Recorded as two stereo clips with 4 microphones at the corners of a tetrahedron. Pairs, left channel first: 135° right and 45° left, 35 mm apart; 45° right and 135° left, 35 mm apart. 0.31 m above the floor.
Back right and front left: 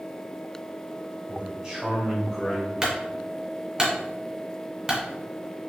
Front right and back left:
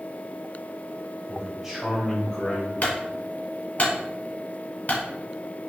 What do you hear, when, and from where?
1.3 s a man speaking: 95° left, 1.6 m; by 2.7 s 55° right, 1.5 m
2.8 s a clunk: 25° right, 1.4 m